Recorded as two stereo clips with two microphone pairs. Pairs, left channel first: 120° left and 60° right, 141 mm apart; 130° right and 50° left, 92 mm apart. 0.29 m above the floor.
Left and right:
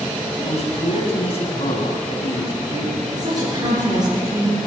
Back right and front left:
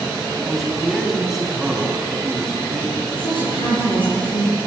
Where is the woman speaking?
115° right, 5.5 m.